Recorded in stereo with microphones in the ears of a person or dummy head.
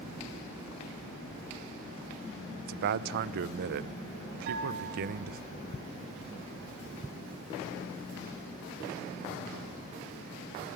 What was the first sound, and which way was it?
A man speaking, 55° right (ahead or behind).